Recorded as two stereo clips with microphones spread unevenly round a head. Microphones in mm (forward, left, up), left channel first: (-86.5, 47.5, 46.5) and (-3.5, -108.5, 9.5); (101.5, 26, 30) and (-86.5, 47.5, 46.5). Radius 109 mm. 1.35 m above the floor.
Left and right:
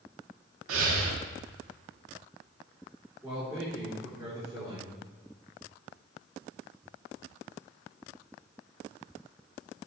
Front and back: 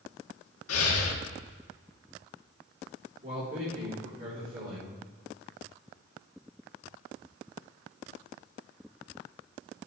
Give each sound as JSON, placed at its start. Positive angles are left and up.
{"t": 0.7, "sound": "breathing", "azimuth_deg": -30, "distance_m": 1.5}
{"t": 3.2, "sound": "a man speaking", "azimuth_deg": -135, "distance_m": 4.5}